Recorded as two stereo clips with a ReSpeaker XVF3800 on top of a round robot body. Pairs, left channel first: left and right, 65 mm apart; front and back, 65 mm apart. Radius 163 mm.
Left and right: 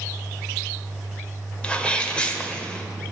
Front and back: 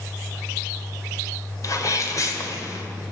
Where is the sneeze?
20° left, 2.5 m.